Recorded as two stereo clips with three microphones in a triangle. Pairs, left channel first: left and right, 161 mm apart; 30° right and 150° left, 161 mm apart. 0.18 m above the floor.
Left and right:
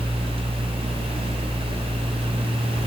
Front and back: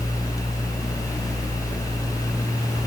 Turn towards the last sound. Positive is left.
No sound to turn to.